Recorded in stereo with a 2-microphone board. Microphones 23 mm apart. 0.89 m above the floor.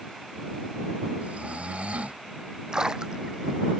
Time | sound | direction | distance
1.2 | snoring | 80° right | ?
2.7 | a splash | 35° right (ahead or behind) | ?